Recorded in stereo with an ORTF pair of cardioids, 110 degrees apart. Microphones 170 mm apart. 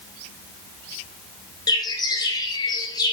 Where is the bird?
20° left, 3.5 m.